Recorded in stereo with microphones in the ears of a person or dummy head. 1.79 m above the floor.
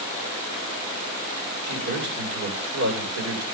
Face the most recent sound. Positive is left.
turn(degrees=-75)  # may be behind; listen again after turning